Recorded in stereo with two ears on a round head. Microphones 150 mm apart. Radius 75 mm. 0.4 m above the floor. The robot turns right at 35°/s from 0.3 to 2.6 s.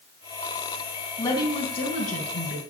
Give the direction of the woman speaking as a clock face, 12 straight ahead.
11 o'clock.